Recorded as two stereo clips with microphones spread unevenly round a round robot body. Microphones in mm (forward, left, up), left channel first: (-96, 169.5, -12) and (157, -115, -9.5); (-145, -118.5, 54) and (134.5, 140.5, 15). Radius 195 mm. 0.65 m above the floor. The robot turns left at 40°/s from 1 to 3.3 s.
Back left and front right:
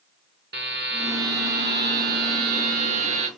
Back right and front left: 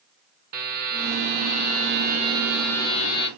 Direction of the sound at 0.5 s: 15° left.